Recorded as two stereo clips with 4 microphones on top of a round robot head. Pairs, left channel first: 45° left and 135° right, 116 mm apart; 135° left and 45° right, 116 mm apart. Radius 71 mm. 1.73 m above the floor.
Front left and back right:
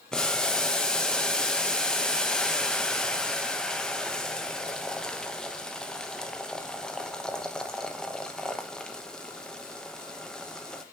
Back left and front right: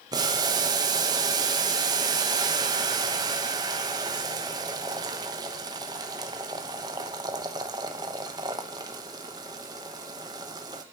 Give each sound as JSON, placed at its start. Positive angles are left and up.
{"t": 0.1, "sound": "boiling", "azimuth_deg": -35, "distance_m": 0.9}